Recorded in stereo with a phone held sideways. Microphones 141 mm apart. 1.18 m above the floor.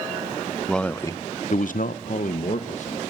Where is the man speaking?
5° left (ahead or behind), 1.0 m; by 3.0 s 50° left (ahead or behind), 1.6 m.